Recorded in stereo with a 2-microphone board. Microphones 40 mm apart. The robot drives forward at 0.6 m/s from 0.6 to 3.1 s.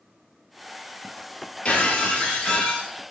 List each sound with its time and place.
1.6 s breaking glass: 35° left (ahead or behind), 1.2 m; by 2.9 s 25° left (ahead or behind), 1.8 m